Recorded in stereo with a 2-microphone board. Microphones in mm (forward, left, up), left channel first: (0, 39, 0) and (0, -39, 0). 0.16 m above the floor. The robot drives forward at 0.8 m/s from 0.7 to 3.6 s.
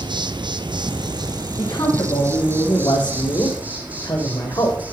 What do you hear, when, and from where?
0.0 s an insect: 80° right, 1.0 m; by 4.9 s 20° right (ahead or behind), 2.5 m
1.6 s a man speaking: 60° left (ahead or behind), 7 m; by 4.8 s 70° left (ahead or behind), 6.5 m